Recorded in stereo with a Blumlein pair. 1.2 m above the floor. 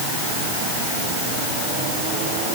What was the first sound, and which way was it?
Only background noise.